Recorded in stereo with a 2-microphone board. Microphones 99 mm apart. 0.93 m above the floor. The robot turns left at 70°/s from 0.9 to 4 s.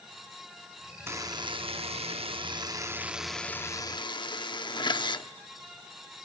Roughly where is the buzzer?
Ahead right.